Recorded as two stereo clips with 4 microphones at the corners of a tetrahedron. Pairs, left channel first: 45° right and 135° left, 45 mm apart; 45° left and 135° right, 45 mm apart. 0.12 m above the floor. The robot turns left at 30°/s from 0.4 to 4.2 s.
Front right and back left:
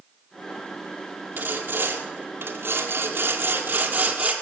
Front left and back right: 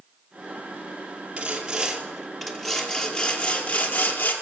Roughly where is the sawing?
Behind.